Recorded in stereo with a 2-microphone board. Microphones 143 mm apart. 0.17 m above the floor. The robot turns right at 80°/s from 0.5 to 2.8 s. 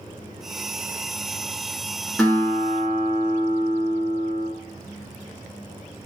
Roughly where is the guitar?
Ahead.